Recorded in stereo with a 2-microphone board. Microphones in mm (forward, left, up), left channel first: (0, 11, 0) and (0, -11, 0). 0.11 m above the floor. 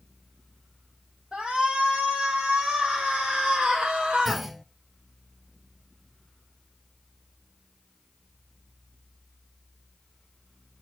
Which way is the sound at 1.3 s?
55° right (ahead or behind).